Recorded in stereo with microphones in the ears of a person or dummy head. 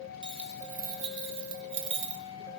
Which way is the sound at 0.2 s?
20° right (ahead or behind).